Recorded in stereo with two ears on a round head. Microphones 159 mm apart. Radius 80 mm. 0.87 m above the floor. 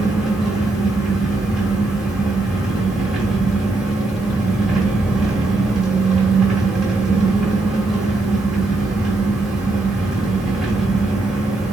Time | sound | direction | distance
0.0 | an engine running | centre (ahead or behind) | 1.4 m